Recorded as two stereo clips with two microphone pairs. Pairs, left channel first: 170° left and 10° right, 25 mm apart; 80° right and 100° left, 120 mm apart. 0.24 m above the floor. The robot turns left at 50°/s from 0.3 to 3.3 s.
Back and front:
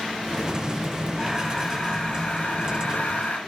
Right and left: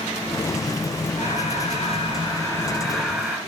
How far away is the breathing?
About 4.5 m.